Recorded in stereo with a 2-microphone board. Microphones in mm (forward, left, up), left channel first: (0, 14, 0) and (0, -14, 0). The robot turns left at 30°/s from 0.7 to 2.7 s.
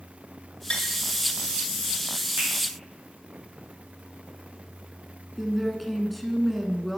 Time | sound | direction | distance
0.7 | tapping | 35° left (ahead or behind) | 1.6 m
2.4 | a finger snap | 70° right (ahead or behind) | 4.5 m
5.4 | a woman speaking | centre (ahead or behind) | 1.1 m